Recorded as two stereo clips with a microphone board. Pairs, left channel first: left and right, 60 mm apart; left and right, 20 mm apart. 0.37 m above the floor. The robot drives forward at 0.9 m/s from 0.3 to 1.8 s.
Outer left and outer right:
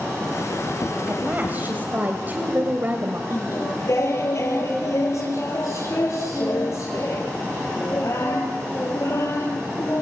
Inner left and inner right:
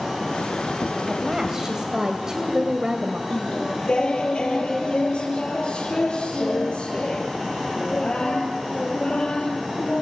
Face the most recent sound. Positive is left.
turn(degrees=55)  # may be behind; listen again after turning